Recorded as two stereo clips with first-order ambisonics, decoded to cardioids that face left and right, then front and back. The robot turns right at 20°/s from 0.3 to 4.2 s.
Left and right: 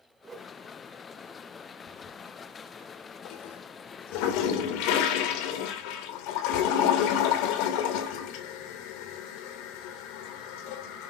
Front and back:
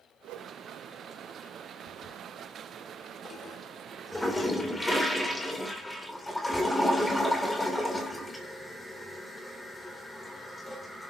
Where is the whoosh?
160° right, 2 m; by 0.6 s 155° right, 2 m.